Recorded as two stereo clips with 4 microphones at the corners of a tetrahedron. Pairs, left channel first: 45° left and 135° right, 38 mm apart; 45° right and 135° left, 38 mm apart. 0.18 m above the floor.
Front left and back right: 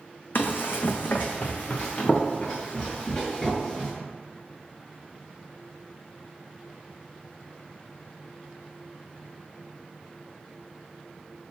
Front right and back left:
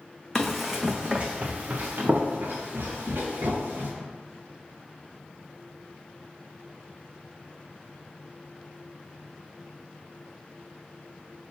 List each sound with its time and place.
0.3 s running footsteps: 35° left, 0.6 m; by 3.9 s 115° left, 1.8 m